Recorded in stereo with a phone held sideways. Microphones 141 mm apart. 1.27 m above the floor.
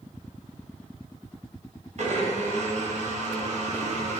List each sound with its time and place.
2.0 s a blender: 55° right (ahead or behind), 0.7 m